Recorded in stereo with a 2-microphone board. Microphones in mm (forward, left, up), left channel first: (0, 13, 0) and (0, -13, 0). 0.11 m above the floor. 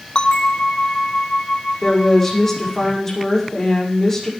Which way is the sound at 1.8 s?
15° left (ahead or behind).